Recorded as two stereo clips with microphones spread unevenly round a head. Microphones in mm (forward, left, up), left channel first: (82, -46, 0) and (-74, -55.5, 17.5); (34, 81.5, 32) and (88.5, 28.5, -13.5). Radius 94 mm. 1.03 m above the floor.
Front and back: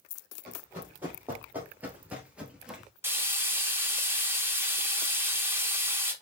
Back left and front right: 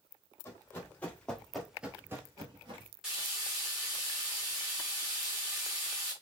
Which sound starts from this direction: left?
Running footsteps, at 0.5 s.